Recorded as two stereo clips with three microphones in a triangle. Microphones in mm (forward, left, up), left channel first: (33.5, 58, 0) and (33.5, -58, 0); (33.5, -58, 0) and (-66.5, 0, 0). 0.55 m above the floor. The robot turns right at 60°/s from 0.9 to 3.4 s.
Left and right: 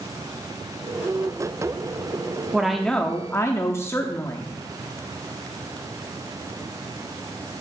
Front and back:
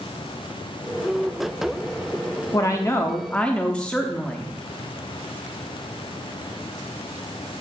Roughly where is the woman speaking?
Ahead.